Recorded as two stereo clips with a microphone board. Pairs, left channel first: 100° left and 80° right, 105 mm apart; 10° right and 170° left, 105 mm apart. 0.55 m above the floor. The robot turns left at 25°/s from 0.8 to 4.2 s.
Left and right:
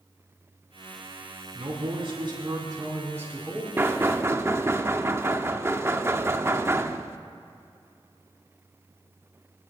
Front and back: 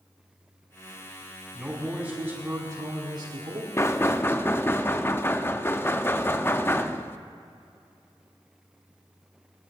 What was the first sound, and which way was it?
A man speaking, 100° right.